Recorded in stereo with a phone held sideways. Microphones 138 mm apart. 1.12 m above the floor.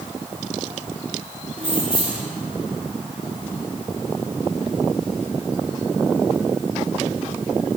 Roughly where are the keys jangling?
Right.